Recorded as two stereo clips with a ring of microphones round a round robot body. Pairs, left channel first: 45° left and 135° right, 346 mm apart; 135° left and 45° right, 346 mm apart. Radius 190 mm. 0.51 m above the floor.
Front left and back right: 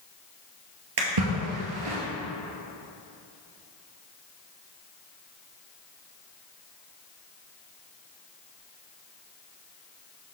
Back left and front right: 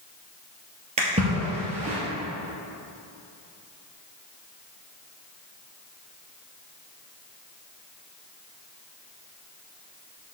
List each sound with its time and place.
1.0 s a splash: 115° right, 2 m